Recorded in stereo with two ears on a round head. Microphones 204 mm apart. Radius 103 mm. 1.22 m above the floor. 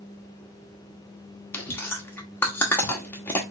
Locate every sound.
1.5 s chewing: 10° left (ahead or behind), 0.8 m